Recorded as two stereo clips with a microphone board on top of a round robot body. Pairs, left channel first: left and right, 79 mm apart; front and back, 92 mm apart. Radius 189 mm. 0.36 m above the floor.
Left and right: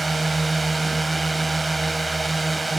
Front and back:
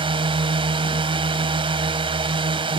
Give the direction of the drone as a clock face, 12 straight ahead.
6 o'clock.